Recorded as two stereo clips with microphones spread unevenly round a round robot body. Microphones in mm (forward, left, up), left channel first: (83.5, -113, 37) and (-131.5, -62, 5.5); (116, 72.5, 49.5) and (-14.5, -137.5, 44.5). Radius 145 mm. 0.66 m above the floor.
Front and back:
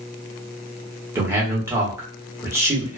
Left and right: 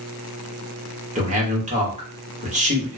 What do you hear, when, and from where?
1.1 s a man speaking: 140° right, 1.2 m